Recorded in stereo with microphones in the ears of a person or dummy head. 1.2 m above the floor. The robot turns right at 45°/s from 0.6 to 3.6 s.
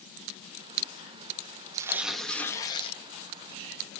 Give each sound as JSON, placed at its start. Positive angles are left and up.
{"t": 1.7, "sound": "tearing paper", "azimuth_deg": -20, "distance_m": 0.6}